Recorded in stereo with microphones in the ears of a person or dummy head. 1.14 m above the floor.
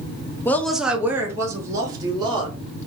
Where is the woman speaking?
10° left (ahead or behind), 0.7 m; by 2.6 s 30° right (ahead or behind), 2.5 m.